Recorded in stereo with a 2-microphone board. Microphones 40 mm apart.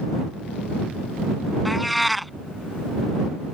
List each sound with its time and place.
1.6 s a cat meowing: centre (ahead or behind)